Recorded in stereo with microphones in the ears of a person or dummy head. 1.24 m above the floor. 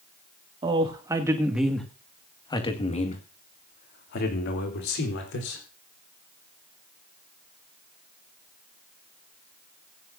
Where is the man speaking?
30° right (ahead or behind), 2.5 m; by 5.6 s 70° left (ahead or behind), 4 m.